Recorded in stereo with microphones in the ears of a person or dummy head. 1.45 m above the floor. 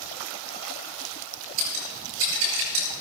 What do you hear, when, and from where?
1.6 s scissors: 85° right, 9 m